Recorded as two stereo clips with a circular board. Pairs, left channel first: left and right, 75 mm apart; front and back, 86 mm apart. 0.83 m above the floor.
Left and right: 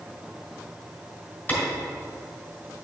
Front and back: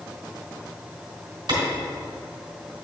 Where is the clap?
160° left, 2.5 m.